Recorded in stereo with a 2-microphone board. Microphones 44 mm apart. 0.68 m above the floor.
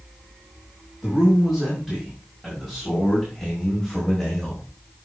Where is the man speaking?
5° right (ahead or behind), 5.5 m; by 4.6 s 5° left (ahead or behind), 3.5 m.